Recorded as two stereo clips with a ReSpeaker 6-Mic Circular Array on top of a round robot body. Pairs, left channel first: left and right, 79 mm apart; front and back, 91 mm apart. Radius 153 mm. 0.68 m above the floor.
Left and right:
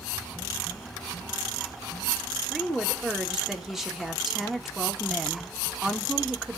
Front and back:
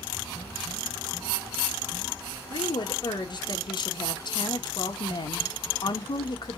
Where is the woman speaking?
5° right, 1.6 m.